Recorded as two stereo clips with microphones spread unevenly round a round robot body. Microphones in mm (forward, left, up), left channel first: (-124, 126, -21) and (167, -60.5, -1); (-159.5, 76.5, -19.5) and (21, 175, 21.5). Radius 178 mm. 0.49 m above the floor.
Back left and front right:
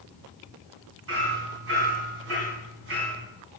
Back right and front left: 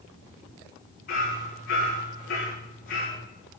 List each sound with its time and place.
1.1 s hammering: 90° right, 3.5 m